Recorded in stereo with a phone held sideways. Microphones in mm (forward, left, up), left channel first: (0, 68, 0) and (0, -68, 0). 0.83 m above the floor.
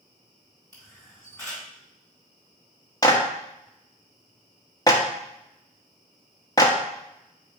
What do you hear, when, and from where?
0.7 s a camera shutter: 20° left (ahead or behind), 3.5 m
3.0 s a clap: 25° left (ahead or behind), 1.0 m